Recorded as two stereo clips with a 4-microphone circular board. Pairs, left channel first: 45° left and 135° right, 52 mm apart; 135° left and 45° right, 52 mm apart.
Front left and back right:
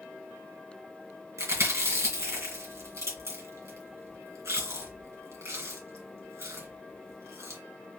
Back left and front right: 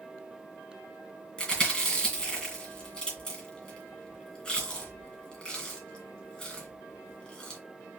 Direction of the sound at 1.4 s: 150° right.